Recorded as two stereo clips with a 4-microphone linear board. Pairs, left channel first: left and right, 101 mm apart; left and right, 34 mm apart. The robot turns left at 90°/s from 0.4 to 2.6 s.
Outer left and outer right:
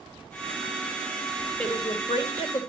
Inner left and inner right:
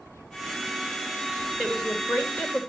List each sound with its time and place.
1.6 s a woman speaking: 165° left, 3 m; by 2.7 s 75° left, 3 m